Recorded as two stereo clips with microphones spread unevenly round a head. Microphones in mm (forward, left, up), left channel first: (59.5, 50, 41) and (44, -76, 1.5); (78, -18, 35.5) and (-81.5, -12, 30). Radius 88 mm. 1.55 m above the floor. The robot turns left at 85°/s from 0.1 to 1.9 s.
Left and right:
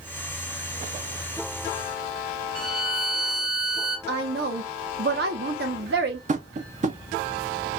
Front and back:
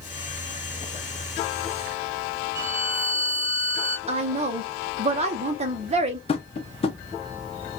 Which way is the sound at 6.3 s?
60° right.